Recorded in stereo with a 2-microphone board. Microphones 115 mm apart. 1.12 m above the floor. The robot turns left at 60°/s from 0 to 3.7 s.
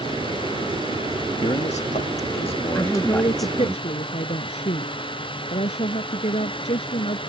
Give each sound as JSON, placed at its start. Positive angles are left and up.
{"t": 1.4, "sound": "a man speaking", "azimuth_deg": 120}
{"t": 2.8, "sound": "a woman speaking", "azimuth_deg": 170}